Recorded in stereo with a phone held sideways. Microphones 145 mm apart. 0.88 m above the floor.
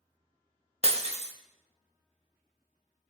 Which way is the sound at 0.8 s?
45° right (ahead or behind).